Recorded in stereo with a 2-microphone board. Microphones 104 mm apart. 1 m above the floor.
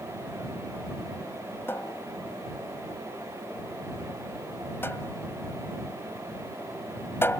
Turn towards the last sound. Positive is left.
turn(degrees=25)  # may be behind; listen again after turning